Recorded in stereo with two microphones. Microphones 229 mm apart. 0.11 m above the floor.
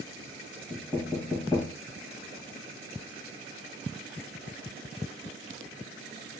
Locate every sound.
0.7 s knocking: 5° right (ahead or behind), 2.0 m